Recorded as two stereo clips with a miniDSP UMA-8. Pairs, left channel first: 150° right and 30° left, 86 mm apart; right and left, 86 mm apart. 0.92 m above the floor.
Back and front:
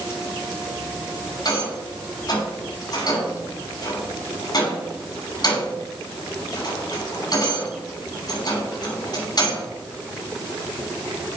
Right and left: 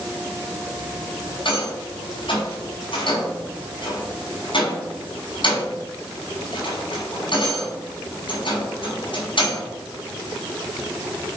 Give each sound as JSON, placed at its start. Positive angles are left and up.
{"t": 1.4, "sound": "a rattle", "azimuth_deg": -110, "distance_m": 6.0}